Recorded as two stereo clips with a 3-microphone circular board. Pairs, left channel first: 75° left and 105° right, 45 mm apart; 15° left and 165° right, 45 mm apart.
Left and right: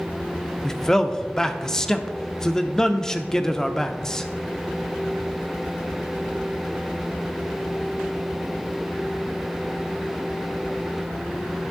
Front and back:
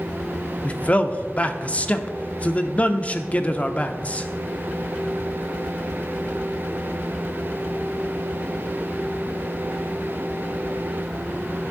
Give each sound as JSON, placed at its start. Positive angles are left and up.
{"t": 0.6, "sound": "a man speaking", "azimuth_deg": 10, "distance_m": 0.7}